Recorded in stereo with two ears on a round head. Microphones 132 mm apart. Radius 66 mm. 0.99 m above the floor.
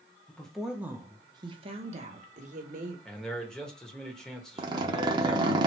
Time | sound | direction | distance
0.3 | a woman speaking | 10° left (ahead or behind) | 0.8 m
3.0 | a man speaking | 5° left (ahead or behind) | 1.1 m
4.6 | a zipper | 30° right (ahead or behind) | 0.8 m